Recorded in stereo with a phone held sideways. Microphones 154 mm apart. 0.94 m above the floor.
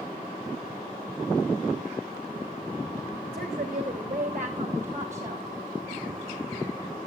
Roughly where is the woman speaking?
Right.